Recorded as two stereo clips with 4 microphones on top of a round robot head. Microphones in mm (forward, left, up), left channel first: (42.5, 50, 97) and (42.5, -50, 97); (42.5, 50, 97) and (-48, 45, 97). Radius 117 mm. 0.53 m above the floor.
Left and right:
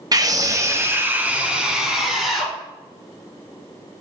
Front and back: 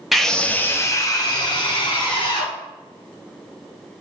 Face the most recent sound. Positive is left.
turn(degrees=0)